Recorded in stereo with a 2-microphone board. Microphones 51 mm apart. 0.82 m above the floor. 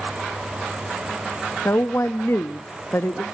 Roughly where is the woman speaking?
Left.